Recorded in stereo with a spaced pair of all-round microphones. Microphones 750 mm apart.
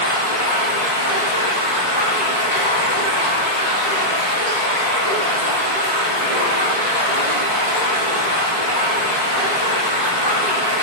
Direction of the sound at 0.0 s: 60° left (ahead or behind).